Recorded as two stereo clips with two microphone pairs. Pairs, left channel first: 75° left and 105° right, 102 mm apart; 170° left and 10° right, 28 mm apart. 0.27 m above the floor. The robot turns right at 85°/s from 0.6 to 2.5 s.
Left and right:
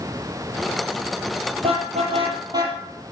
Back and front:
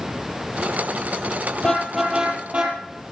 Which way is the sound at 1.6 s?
130° right.